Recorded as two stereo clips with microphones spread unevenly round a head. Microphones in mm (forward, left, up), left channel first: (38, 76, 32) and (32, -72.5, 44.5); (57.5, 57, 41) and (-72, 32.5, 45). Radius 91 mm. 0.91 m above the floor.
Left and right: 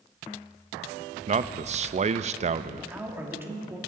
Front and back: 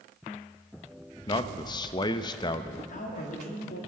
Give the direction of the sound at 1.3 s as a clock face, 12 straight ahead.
2 o'clock.